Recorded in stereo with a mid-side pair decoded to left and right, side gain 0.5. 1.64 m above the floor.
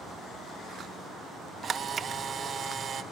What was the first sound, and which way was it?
A camera shutter, 45° right.